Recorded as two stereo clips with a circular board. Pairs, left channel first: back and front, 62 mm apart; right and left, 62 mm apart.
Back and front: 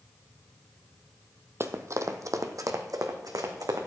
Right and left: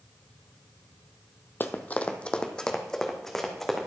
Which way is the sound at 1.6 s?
40° right.